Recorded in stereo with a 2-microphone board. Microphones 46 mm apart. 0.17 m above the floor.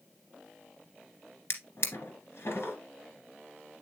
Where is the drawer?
55° left (ahead or behind), 1.6 m.